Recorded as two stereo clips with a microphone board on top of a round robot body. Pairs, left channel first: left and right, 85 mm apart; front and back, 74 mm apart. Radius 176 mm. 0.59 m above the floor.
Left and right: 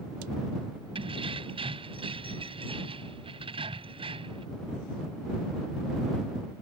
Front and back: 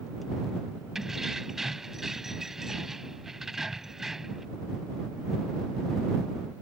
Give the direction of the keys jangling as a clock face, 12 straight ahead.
3 o'clock.